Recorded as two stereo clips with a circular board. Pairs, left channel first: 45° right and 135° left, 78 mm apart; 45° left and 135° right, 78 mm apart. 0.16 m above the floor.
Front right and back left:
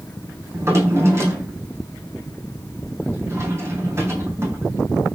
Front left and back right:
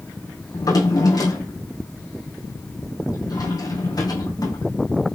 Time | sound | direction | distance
0.5 | a drawer | 80° left | 3 m